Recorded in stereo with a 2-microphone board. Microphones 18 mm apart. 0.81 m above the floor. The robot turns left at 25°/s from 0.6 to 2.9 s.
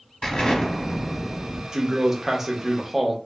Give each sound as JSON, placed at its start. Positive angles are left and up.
{"t": 0.2, "sound": "an explosion", "side_deg": 55, "distance_m": 0.9}
{"t": 1.7, "sound": "a man speaking", "side_deg": -30, "distance_m": 0.7}